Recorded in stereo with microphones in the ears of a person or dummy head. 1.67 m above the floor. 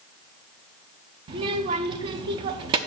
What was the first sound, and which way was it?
A child speaking, 30° right (ahead or behind).